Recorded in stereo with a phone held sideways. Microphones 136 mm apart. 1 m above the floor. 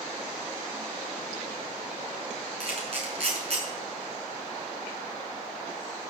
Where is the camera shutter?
50° right (ahead or behind), 5 m.